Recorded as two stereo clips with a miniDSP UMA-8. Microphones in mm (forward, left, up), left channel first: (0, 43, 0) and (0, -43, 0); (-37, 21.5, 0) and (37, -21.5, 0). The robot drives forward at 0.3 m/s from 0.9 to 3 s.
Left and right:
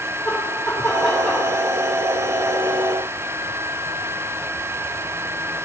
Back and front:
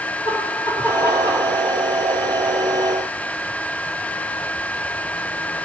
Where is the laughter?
170° right, 4 m.